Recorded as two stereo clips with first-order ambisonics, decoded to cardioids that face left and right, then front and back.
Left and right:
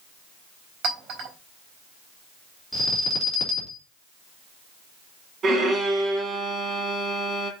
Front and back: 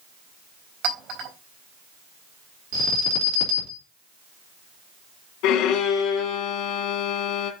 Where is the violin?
25° right, 2.5 m.